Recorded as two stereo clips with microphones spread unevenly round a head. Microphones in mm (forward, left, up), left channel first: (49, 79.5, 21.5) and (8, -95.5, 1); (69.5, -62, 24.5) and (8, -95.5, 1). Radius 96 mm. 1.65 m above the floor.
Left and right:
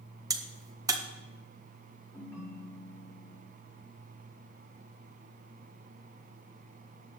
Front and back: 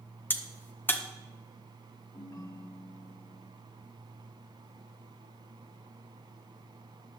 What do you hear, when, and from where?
0.3 s a crack: 30° right, 1.6 m
2.1 s a ringtone: straight ahead, 5 m